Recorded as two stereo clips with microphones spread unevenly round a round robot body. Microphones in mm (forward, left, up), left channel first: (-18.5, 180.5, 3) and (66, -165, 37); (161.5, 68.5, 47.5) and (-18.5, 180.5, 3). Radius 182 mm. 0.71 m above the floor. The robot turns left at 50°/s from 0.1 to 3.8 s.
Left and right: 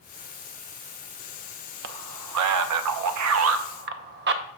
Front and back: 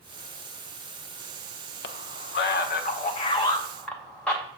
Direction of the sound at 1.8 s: 30° right.